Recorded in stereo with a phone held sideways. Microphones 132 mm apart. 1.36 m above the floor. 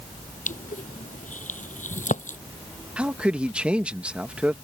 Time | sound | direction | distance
0.5 | crushing | 75° left (ahead or behind) | ?
3.0 | a man speaking | 10° right (ahead or behind) | ?